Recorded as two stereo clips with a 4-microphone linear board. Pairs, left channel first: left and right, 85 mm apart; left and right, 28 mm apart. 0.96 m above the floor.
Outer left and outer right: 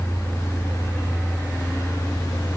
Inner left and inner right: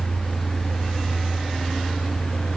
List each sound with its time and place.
Only background noise.